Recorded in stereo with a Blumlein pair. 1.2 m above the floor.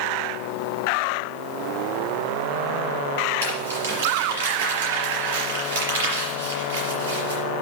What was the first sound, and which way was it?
Crumpling, 60° right.